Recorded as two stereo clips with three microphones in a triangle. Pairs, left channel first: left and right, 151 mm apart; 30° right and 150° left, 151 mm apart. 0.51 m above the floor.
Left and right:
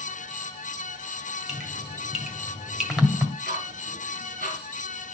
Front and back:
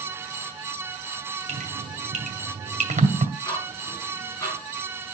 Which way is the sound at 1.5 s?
175° right.